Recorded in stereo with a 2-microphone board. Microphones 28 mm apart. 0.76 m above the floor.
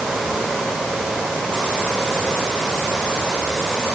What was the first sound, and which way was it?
Only background noise.